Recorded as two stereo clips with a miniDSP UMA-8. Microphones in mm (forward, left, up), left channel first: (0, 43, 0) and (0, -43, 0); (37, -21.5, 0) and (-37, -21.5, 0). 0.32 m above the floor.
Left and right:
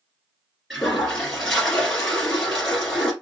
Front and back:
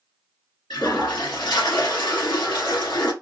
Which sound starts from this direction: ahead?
A toilet flushing, at 0.7 s.